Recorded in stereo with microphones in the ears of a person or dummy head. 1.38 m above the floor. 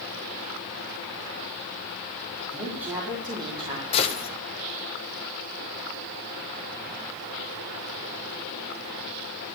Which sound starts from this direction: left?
A gunshot, at 3.9 s.